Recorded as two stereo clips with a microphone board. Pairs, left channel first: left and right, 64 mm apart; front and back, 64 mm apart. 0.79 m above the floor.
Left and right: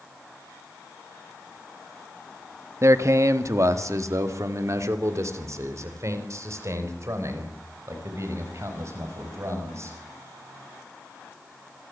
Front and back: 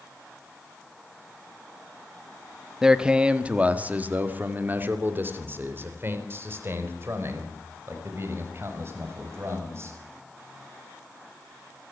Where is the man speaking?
105° right, 1.3 m; by 10.0 s 135° right, 6.5 m.